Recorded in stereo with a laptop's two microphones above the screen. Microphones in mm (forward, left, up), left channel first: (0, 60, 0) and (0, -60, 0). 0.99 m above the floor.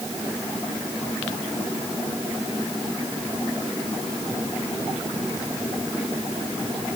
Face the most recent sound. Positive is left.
No sound to turn to.